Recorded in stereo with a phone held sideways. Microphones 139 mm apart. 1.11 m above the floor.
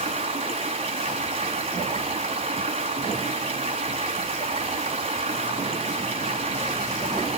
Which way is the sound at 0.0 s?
45° right (ahead or behind).